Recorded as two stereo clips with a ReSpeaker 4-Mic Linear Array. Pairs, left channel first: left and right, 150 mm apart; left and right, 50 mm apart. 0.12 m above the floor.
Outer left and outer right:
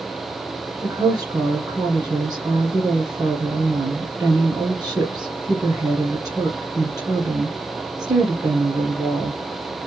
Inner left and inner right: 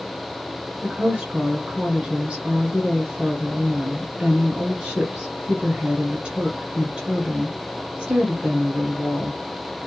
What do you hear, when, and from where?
0.8 s a woman speaking: 25° right (ahead or behind), 1.8 m